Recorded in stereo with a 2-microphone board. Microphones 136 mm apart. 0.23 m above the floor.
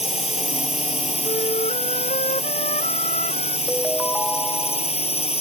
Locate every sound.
0.0 s a drone: 50° left (ahead or behind)
1.2 s a flute: 65° left (ahead or behind)
3.7 s a ringtone: 5° left (ahead or behind)